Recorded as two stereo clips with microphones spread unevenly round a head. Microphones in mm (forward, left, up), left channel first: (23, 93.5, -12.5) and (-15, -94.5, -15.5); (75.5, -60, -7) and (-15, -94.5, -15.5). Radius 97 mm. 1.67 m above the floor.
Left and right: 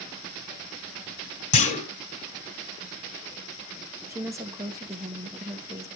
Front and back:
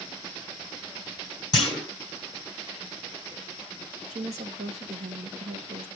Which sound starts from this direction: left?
A clunk, at 1.5 s.